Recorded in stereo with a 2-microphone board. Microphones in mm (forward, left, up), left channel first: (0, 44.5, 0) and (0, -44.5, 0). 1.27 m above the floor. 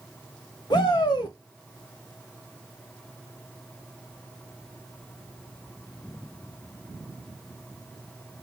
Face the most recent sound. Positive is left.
turn(degrees=55)  # may be behind; listen again after turning